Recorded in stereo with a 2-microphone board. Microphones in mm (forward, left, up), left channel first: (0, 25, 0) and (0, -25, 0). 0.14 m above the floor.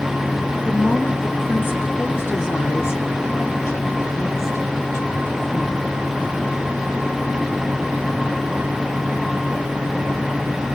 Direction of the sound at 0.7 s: 25° left (ahead or behind).